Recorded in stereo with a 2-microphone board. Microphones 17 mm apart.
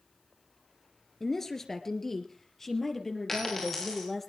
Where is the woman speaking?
20° left (ahead or behind), 1.8 m; by 4.3 s 15° left (ahead or behind), 3.5 m.